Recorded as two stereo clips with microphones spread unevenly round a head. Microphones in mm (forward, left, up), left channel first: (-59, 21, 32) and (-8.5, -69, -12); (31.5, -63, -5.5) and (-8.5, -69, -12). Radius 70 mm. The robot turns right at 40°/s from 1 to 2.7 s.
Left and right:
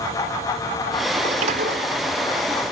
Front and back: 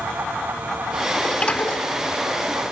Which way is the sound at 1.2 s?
60° right.